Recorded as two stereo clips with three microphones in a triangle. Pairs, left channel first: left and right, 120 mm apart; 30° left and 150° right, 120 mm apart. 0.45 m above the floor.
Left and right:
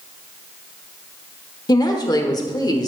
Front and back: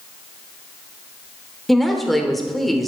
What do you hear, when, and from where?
1.7 s a woman speaking: 120° left, 1.2 m